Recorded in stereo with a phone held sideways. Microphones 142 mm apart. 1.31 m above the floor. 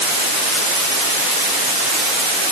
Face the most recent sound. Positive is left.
No sound to turn to.